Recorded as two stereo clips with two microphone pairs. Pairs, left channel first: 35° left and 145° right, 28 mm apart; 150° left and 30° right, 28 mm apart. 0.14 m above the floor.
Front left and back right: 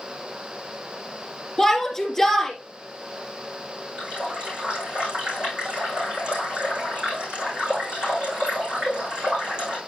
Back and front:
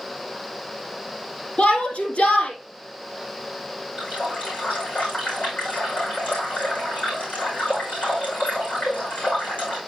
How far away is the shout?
About 3.5 m.